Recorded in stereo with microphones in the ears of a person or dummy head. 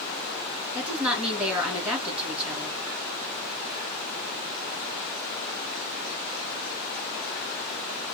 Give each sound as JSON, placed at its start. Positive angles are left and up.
{"t": 0.8, "sound": "a woman speaking", "side_deg": -10, "distance_m": 2.5}